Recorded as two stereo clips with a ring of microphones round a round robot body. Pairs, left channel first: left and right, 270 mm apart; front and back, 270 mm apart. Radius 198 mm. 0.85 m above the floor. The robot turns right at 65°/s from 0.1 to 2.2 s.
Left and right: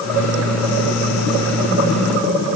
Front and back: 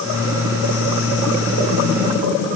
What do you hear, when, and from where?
Only background noise.